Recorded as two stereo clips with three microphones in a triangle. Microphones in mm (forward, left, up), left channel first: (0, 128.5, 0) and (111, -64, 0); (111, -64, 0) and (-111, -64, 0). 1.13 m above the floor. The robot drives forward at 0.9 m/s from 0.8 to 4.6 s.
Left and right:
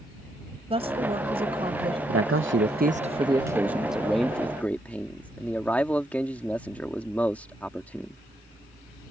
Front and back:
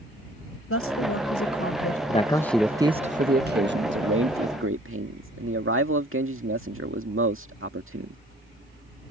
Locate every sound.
0.7 s a woman speaking: 5° left
2.1 s a man speaking: 60° right; by 8.2 s 155° right